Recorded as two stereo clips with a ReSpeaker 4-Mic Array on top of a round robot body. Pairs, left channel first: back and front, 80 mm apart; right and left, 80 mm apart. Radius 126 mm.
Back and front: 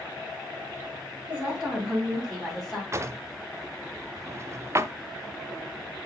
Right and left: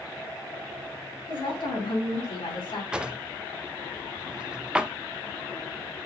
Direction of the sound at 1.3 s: 75° right.